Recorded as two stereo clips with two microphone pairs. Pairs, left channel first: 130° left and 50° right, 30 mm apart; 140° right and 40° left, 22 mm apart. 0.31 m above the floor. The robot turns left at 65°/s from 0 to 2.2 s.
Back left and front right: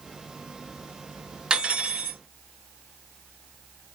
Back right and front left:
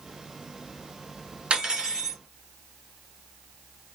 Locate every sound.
1.5 s cutlery clinking: 5° left, 1.8 m; by 2.2 s 40° right, 1.8 m